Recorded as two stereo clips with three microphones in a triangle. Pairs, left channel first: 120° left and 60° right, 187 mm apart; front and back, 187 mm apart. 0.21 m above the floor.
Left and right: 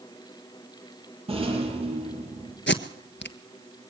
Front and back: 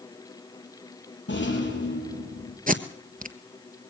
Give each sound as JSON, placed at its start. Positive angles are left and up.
{"t": 1.3, "sound": "a rattle", "azimuth_deg": 0, "distance_m": 7.0}
{"t": 2.7, "sound": "tape being pulled", "azimuth_deg": 135, "distance_m": 1.3}